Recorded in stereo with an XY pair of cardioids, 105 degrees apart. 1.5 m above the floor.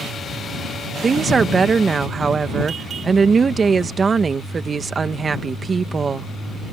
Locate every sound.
1.0 s a woman speaking: 35° right